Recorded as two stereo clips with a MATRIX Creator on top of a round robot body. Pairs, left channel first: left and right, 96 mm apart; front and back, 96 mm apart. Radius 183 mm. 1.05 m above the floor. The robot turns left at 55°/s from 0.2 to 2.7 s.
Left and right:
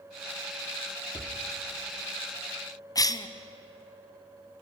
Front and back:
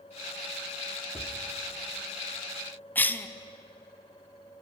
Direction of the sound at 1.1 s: 40° left.